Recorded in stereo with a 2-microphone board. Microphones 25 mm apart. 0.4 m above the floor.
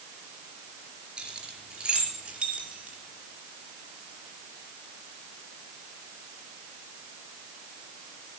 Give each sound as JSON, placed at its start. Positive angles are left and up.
{"t": 1.2, "sound": "keys jangling", "side_deg": -40, "distance_m": 4.5}